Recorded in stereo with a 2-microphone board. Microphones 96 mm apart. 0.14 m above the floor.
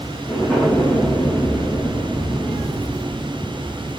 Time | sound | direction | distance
0.3 | an explosion | 10° left (ahead or behind) | 2.5 m